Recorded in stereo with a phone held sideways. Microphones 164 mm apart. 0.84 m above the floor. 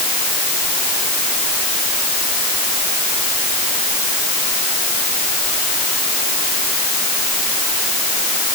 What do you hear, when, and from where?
Only background noise.